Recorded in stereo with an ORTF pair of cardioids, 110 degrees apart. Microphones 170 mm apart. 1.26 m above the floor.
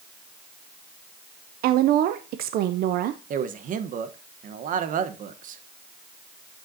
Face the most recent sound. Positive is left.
turn(degrees=-55)